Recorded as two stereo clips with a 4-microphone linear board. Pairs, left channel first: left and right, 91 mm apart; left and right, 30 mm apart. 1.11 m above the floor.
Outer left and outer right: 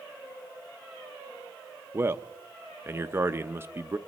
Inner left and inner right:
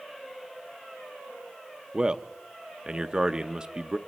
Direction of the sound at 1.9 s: 25° right (ahead or behind).